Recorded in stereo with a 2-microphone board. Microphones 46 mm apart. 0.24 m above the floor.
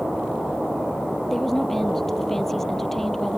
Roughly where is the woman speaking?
Centre.